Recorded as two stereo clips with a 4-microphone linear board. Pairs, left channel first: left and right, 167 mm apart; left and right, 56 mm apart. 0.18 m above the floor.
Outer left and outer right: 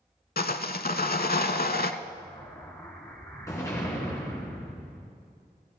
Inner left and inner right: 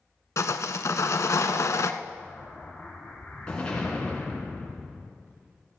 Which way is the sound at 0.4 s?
65° left (ahead or behind).